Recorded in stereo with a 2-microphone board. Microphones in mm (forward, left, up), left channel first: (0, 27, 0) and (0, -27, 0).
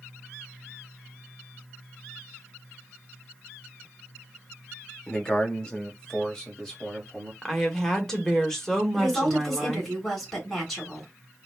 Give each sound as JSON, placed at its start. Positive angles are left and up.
{"t": 5.1, "sound": "a man speaking", "side_deg": 20, "distance_m": 0.8}
{"t": 7.4, "sound": "a woman speaking", "side_deg": 10, "distance_m": 0.9}
{"t": 8.9, "sound": "a woman speaking", "side_deg": 10, "distance_m": 2.0}